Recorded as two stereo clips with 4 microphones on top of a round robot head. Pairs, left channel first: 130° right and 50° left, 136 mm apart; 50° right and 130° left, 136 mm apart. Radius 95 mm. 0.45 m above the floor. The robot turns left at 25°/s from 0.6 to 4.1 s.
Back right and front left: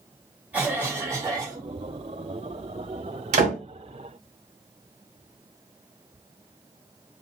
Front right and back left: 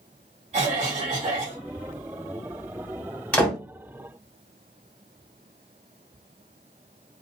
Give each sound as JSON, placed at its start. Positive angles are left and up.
{"t": 0.5, "sound": "a cough", "azimuth_deg": 125, "distance_m": 1.7}
{"t": 3.3, "sound": "a door slam", "azimuth_deg": 30, "distance_m": 1.7}